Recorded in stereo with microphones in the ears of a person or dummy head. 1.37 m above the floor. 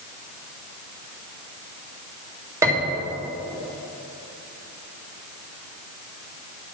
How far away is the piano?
About 1.5 m.